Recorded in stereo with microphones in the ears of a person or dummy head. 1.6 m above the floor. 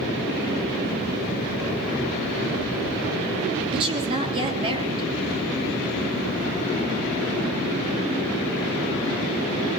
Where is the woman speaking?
30° right (ahead or behind), 3 m.